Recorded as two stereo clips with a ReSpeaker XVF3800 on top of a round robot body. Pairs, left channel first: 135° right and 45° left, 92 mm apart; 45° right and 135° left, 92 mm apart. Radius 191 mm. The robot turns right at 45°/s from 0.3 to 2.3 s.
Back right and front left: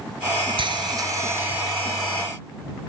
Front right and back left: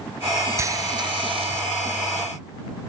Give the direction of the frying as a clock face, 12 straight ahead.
10 o'clock.